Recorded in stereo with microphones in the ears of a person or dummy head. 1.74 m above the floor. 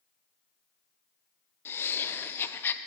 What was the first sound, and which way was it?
Laughter, 15° left (ahead or behind).